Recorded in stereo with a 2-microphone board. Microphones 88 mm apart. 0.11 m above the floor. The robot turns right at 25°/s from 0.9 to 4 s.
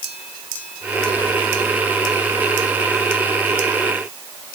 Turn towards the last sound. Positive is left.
No sound to turn to.